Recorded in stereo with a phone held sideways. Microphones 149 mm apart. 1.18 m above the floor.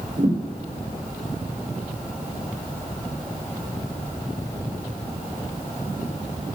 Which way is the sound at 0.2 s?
60° right (ahead or behind).